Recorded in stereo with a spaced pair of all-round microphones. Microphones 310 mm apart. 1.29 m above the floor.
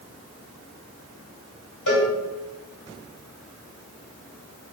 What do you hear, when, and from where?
1.9 s a cowbell: 80° left, 1.4 m